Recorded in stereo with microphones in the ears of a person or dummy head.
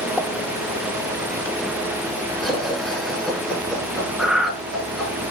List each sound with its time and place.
0.2 s a pop: 5° left (ahead or behind), 2.5 m
2.4 s laughter: 5° left (ahead or behind), 8.5 m
4.2 s breathing: 10° right (ahead or behind), 1.4 m